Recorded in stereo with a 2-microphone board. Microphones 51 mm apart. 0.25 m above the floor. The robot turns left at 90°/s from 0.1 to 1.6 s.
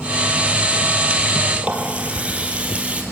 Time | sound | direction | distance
1.6 | a running tap | 25° right (ahead or behind) | 3.5 m